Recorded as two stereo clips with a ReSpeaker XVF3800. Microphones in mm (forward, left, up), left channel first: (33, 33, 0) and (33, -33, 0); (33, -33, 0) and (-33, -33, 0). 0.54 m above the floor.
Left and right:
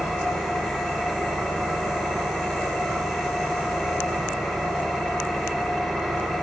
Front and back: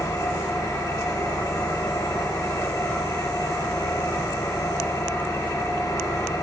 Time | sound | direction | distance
0.0 | an engine running | straight ahead | 0.8 m